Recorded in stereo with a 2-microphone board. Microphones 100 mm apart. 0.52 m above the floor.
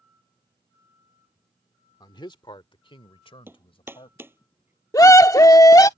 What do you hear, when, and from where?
2.0 s a man speaking: 45° left (ahead or behind); by 4.2 s 70° left (ahead or behind)
3.5 s hammering: 20° right (ahead or behind)
4.9 s a scream: 35° left (ahead or behind)